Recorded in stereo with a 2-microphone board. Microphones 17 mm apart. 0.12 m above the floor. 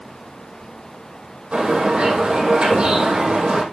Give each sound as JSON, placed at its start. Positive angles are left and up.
{"t": 1.5, "sound": "a bird", "side_deg": -75, "distance_m": 4.5}